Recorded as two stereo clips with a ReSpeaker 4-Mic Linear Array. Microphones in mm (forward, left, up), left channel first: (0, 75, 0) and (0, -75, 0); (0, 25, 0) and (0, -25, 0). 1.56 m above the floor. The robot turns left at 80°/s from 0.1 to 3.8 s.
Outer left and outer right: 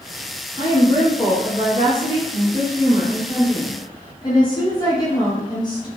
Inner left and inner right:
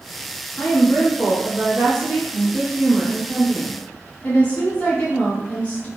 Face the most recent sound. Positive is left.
turn(degrees=155)